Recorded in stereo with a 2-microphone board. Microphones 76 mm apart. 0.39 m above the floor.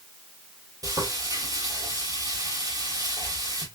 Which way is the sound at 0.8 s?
55° right (ahead or behind).